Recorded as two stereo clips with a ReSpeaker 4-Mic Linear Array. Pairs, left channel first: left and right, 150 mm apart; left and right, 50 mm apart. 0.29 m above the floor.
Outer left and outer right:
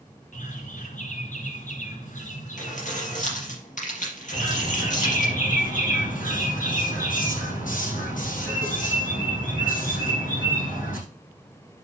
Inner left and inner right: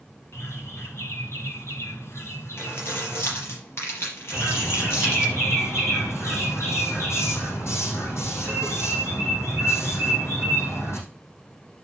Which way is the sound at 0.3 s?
65° left (ahead or behind).